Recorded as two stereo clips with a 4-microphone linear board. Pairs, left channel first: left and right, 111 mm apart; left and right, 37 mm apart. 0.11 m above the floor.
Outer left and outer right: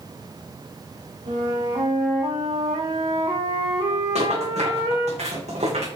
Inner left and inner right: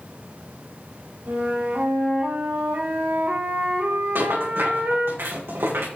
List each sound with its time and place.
1.3 s a flute: 75° right (ahead or behind), 6.5 m
4.2 s a rattle: 80° right, 8.5 m